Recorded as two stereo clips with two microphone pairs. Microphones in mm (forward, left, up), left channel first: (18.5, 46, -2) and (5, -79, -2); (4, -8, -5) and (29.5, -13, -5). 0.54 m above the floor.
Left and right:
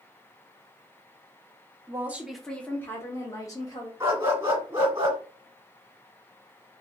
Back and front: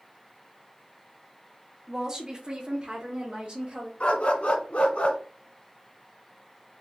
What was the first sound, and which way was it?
A woman speaking, 60° right.